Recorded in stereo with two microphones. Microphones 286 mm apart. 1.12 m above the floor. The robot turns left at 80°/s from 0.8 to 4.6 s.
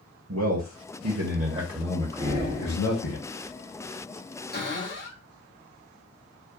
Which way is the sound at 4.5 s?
35° left (ahead or behind).